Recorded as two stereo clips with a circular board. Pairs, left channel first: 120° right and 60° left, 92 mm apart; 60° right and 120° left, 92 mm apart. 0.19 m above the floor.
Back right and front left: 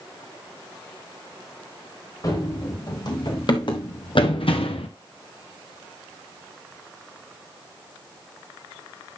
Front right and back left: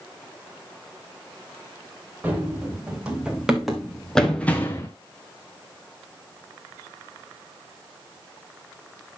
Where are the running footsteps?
165° right, 3.5 m; by 4.9 s 120° right, 1.3 m.